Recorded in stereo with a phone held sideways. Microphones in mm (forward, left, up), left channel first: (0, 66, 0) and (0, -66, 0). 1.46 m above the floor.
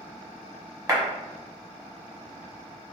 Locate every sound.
0.9 s a clap: 25° right (ahead or behind), 1.1 m